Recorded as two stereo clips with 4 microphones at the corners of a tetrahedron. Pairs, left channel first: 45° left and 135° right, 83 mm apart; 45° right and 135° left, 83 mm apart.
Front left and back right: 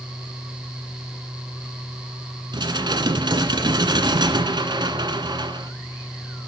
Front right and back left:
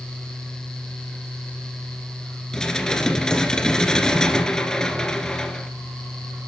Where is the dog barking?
I don't hear a dog barking.